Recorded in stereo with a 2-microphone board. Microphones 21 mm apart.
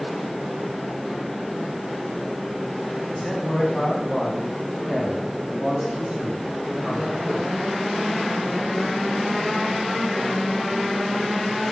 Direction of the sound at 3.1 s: 35° left (ahead or behind).